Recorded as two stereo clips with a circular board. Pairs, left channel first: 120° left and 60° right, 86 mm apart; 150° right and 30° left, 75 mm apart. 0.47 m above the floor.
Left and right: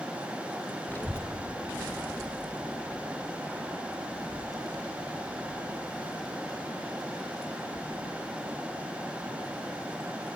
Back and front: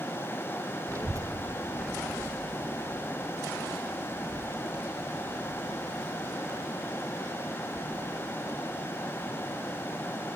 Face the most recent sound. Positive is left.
turn(degrees=80)